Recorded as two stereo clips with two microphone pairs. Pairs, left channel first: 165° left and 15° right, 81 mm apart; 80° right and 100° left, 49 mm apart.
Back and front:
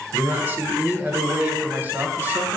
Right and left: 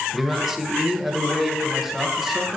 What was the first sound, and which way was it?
A man speaking, 25° left.